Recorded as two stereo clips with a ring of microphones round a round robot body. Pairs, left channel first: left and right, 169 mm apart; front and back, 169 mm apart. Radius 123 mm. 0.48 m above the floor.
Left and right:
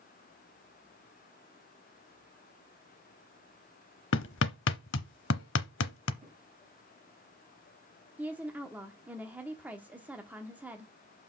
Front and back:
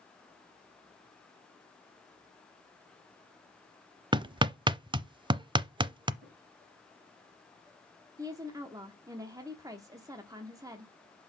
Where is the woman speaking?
155° right, 1.0 m.